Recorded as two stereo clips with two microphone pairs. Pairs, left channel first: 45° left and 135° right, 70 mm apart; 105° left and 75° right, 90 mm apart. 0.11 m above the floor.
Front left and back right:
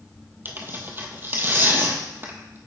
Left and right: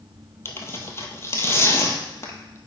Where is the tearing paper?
165° left, 0.8 m.